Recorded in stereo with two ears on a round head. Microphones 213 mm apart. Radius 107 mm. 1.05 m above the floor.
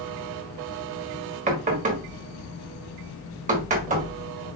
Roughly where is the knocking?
Right.